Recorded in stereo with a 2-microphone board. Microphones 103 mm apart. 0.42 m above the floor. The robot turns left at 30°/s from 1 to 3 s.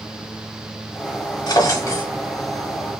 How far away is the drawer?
About 0.7 m.